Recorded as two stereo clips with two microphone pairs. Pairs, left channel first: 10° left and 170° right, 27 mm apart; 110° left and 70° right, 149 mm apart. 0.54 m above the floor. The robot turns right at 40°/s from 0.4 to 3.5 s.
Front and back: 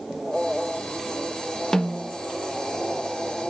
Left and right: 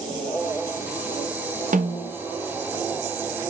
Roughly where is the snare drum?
Ahead right.